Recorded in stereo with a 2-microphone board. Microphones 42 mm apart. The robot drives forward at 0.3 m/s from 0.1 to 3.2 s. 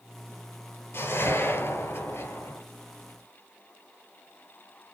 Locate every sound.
0.9 s a whoosh: 75° left (ahead or behind), 3 m; by 2.6 s 80° left, 3 m